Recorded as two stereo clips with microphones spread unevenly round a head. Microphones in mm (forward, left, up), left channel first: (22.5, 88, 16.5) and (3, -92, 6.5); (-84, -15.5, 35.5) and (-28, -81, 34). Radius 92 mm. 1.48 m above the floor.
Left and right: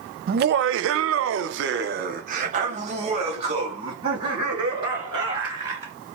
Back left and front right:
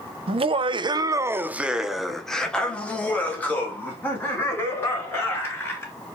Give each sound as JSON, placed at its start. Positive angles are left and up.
{"t": 0.3, "sound": "laughter", "azimuth_deg": -55, "distance_m": 0.6}